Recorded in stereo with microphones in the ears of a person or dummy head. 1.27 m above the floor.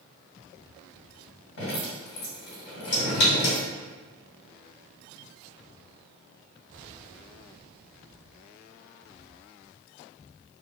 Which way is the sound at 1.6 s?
60° left (ahead or behind).